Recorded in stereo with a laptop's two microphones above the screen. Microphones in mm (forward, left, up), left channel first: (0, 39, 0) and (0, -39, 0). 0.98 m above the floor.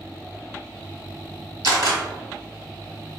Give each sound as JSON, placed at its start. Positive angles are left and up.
{"t": 1.6, "sound": "a camera shutter", "side_deg": -60, "distance_m": 1.4}